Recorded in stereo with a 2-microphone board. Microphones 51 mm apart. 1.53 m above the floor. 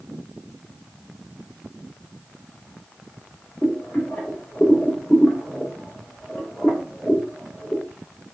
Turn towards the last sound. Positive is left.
turn(degrees=35)  # may be behind; listen again after turning